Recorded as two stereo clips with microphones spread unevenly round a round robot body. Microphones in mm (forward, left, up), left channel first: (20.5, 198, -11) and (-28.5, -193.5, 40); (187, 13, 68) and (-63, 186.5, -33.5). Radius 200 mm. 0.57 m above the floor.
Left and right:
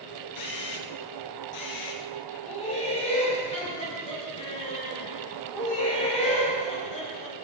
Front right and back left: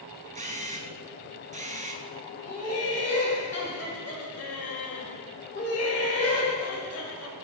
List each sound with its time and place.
0.3 s a camera shutter: 70° left, 1.6 m
2.4 s laughter: 10° left, 3 m